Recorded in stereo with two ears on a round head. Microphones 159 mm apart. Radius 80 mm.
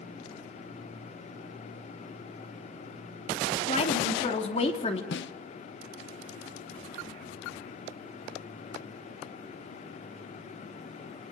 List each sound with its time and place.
3.7 s a woman speaking: 35° left (ahead or behind), 3 m
5.1 s a snare drum: 75° left (ahead or behind), 0.8 m